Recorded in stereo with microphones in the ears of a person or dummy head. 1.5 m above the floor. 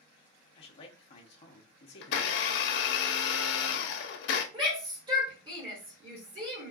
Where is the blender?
60° left (ahead or behind), 0.7 m.